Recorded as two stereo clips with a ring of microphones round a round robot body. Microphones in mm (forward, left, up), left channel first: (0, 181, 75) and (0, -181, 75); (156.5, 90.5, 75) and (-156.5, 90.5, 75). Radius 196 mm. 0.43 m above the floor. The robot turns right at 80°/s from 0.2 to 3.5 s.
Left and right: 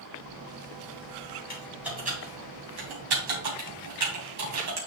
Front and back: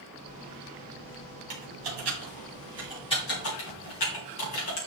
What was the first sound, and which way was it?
Typing on a keyboard, 155° left.